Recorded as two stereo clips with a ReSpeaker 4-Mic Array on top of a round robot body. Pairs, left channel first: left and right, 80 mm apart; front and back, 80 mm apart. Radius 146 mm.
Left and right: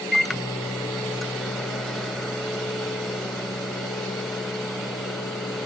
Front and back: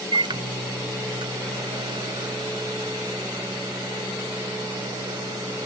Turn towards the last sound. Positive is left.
turn(degrees=180)